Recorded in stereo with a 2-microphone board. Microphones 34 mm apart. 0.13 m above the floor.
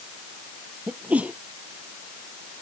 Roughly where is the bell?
No bell in this recording.